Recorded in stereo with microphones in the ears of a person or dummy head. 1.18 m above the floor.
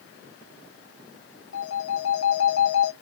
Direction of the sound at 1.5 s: 75° left (ahead or behind).